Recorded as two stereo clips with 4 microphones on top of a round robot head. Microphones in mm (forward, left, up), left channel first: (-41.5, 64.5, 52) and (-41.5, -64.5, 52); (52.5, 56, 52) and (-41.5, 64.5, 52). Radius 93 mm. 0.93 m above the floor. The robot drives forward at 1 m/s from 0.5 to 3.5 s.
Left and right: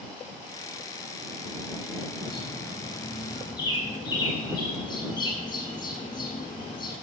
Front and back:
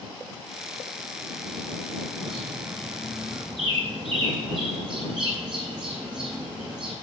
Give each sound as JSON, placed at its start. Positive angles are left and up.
{"t": 2.2, "sound": "a bird", "azimuth_deg": 140, "distance_m": 9.5}